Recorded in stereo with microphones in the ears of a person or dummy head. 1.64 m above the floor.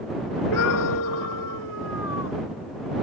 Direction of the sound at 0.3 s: 85° left.